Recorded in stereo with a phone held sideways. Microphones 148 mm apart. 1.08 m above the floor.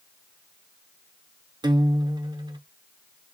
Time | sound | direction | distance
1.6 | a guitar | 30° right (ahead or behind) | 0.8 m